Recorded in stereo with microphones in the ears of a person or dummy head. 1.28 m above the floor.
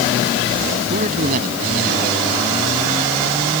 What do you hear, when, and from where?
0.9 s a man speaking: 45° right (ahead or behind)